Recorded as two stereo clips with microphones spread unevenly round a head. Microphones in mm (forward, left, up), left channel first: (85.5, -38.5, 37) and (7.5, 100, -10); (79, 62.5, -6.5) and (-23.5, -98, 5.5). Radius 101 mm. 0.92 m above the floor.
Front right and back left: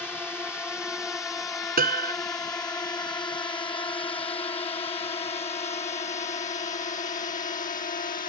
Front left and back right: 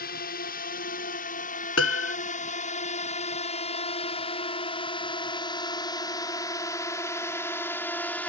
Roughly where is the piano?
Left.